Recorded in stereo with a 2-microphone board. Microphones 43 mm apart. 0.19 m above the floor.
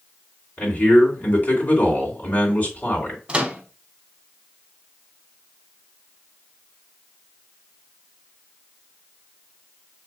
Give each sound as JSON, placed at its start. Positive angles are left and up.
{"t": 0.6, "sound": "a man speaking", "side_deg": 40, "distance_m": 2.5}
{"t": 3.3, "sound": "a microwave", "side_deg": -25, "distance_m": 0.9}